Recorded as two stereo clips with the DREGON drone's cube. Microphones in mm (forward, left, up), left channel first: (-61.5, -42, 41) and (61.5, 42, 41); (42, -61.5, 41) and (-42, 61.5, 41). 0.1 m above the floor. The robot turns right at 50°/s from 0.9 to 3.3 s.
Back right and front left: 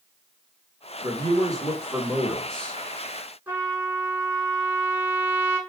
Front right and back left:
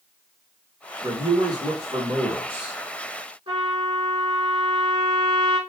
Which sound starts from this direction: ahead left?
A man speaking, at 1.0 s.